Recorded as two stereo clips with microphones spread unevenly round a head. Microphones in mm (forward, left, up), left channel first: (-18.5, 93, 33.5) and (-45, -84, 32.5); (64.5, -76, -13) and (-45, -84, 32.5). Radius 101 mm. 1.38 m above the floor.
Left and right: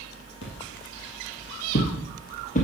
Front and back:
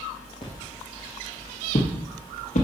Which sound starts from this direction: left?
Footsteps, at 0.4 s.